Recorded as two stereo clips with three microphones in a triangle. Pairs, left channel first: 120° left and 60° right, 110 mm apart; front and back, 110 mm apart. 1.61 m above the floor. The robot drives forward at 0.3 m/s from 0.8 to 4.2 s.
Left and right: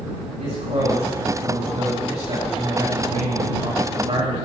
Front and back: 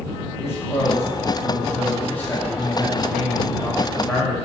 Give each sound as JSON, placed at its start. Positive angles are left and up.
{"t": 0.4, "sound": "a man speaking", "azimuth_deg": -70, "distance_m": 4.5}